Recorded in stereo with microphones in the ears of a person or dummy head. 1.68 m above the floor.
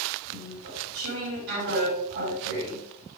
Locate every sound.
0.3 s chewing: 70° right (ahead or behind), 4.5 m